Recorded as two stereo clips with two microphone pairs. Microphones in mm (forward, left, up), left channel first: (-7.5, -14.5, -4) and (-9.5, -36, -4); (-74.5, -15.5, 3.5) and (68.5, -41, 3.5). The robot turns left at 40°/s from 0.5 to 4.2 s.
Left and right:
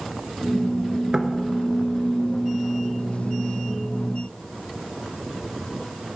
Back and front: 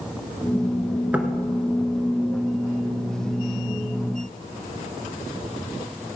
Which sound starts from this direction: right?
Knocking, at 1.1 s.